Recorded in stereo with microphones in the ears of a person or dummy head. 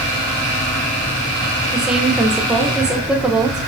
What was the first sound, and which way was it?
A woman speaking, 5° right (ahead or behind).